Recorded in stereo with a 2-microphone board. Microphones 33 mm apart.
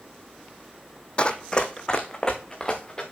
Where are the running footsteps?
35° left (ahead or behind), 0.9 m; by 3.0 s 20° left (ahead or behind), 2.5 m.